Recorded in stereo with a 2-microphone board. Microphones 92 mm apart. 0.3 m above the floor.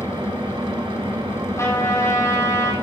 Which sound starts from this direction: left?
A trumpet, at 1.6 s.